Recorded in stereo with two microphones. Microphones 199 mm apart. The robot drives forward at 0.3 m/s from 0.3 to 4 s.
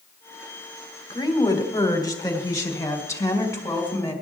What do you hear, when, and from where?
1.1 s a woman speaking: 20° left (ahead or behind), 1.4 m; by 4.1 s 15° left (ahead or behind), 2 m